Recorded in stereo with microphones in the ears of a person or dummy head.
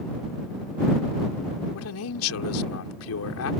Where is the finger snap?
No finger snap in this recording.